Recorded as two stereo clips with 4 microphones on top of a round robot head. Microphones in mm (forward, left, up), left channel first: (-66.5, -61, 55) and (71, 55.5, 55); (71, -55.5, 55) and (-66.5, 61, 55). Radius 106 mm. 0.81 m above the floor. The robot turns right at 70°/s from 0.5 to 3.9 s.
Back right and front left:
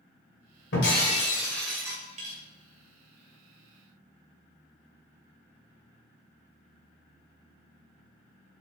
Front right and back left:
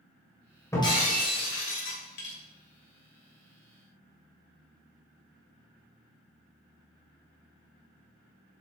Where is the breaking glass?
115° right, 2 m; by 2.4 s straight ahead, 2 m.